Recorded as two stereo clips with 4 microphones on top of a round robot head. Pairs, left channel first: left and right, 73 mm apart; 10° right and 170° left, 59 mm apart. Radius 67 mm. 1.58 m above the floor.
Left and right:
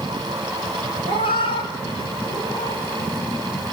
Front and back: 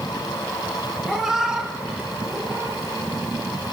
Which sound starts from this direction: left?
A cat meowing, at 1.1 s.